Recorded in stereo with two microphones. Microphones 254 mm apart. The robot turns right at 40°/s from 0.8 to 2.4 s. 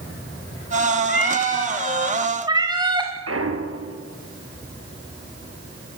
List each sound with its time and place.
1.1 s a cat meowing: 145° left, 4.5 m; by 3.1 s 165° right, 4.5 m
3.3 s a clunk: 65° right (ahead or behind), 3 m